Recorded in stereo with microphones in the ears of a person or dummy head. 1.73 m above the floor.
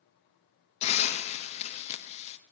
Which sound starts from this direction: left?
A hiss, at 0.8 s.